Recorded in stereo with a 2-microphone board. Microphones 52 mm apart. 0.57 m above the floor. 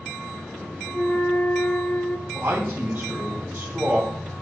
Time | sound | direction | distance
0.9 | a flute | 20° left (ahead or behind) | 1.1 m
2.3 | a man speaking | 45° right (ahead or behind) | 3 m